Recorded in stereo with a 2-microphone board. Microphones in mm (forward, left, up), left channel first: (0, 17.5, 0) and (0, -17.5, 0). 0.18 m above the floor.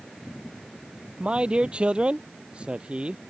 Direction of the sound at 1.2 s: 30° right (ahead or behind).